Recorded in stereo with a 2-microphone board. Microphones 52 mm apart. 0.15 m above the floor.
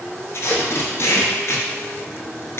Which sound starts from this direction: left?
Tape being pulled, at 0.3 s.